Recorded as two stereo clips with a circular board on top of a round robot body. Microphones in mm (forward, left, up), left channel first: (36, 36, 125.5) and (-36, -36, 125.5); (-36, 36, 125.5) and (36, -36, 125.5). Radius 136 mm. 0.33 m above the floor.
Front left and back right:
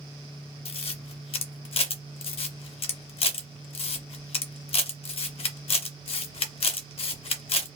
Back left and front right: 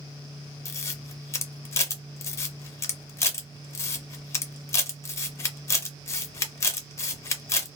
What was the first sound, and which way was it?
A camera shutter, 70° left.